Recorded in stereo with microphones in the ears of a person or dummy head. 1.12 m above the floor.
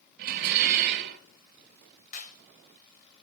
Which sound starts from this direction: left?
A clap, at 2.1 s.